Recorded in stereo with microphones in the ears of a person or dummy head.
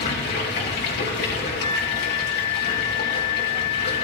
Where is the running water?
50° left (ahead or behind), 2.5 m.